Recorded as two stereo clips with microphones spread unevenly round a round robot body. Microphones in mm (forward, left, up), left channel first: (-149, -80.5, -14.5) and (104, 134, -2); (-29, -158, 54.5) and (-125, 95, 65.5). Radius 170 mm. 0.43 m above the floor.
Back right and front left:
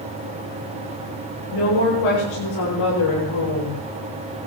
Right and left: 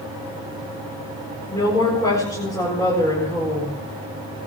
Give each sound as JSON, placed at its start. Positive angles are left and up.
{"t": 1.5, "sound": "a woman speaking", "azimuth_deg": -145, "distance_m": 7.5}